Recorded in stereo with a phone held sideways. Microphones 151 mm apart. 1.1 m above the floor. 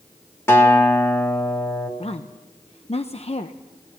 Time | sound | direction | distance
0.5 | a guitar | 15° left (ahead or behind) | 2.5 m
2.0 | a woman speaking | 45° left (ahead or behind) | 0.8 m